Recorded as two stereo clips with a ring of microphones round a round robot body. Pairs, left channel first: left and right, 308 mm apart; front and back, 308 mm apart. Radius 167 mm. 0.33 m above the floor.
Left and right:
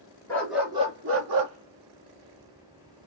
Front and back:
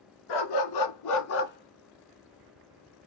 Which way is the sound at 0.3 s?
5° left.